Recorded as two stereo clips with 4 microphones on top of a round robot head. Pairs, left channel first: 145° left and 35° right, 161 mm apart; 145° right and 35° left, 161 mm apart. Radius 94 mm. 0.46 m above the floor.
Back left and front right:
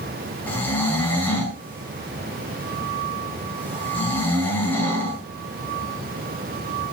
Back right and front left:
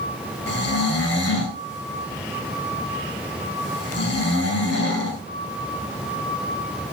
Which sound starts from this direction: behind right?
Snoring, at 0.5 s.